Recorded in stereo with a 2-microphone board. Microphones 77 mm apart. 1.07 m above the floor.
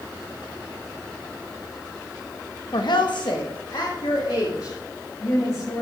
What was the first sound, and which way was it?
A woman speaking, 65° left (ahead or behind).